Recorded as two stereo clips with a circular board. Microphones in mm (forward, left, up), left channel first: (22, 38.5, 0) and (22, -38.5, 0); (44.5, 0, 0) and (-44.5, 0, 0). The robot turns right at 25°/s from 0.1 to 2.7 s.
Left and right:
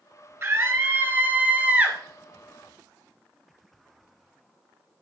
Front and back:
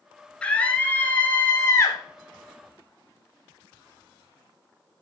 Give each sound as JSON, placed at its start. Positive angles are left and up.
{"t": 0.4, "sound": "a scream", "azimuth_deg": -70, "distance_m": 1.2}